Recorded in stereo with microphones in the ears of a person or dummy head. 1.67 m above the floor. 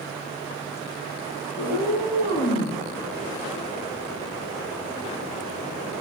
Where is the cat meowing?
50° left (ahead or behind), 7 m; by 2.8 s 45° left (ahead or behind), 7.5 m.